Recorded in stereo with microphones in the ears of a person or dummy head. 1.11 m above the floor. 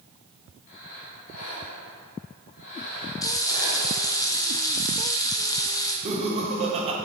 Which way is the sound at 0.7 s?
40° left (ahead or behind).